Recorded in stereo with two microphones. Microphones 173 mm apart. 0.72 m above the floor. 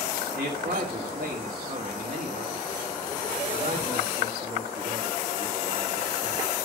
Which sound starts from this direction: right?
A man speaking, at 0.3 s.